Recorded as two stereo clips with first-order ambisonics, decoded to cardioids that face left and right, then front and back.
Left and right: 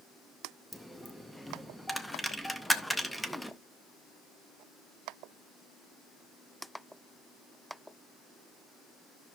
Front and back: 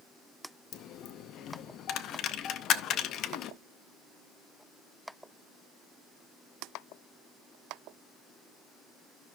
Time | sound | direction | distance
0.7 | a dropped coin | straight ahead | 0.6 m